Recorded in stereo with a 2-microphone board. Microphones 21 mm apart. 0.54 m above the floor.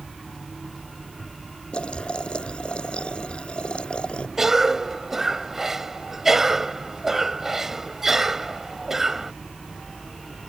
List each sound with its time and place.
1.7 s boiling: 60° left (ahead or behind)
4.4 s a cough: 20° right (ahead or behind)